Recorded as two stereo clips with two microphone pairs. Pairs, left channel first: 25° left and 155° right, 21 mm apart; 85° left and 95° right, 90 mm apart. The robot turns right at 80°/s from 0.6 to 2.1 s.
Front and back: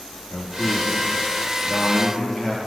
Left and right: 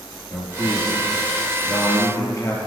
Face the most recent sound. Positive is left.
turn(degrees=140)